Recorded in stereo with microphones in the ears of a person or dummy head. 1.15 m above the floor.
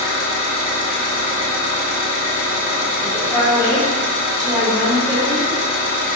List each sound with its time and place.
0.0 s an engine running: 45° left (ahead or behind), 1.4 m
3.0 s a woman speaking: 10° right (ahead or behind), 1.7 m